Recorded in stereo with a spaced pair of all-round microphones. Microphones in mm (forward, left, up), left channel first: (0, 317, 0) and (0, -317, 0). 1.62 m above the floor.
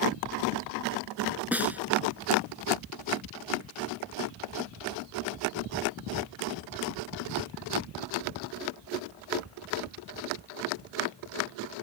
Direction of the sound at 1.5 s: Centre (ahead or behind).